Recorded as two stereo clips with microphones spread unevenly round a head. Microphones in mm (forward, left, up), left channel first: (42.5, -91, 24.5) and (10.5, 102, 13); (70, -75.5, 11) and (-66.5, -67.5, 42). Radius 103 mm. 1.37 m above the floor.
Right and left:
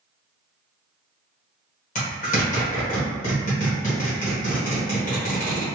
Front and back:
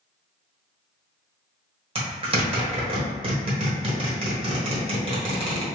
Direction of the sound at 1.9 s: 135° right.